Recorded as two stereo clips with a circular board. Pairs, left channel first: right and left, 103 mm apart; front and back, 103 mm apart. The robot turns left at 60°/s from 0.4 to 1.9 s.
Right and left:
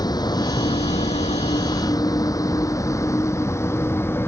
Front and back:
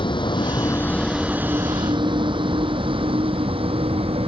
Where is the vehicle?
40° right; by 4.3 s 155° right.